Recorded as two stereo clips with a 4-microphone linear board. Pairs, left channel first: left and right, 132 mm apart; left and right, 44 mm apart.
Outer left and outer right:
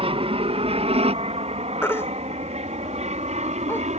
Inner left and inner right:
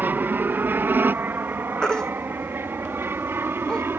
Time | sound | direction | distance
0.0 | an aircraft | 45° right (ahead or behind) | ?
1.8 | a baby crying | 20° left (ahead or behind) | ?